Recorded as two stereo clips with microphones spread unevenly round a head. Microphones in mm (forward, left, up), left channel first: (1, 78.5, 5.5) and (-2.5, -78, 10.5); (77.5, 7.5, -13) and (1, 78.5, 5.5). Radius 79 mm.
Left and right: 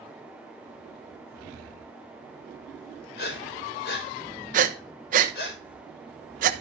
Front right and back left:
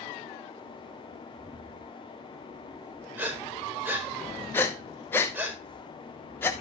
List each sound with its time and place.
3.2 s breathing: 65° left, 5 m
4.5 s breathing: 105° right, 1.1 m